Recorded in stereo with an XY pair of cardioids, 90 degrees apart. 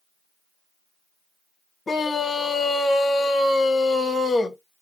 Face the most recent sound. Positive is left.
turn(degrees=30)